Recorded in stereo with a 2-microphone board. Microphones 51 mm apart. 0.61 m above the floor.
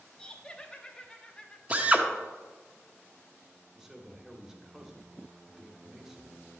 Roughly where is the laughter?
Centre.